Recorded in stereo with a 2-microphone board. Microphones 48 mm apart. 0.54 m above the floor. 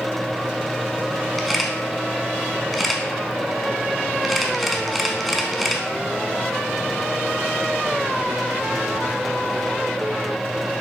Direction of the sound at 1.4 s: Centre (ahead or behind).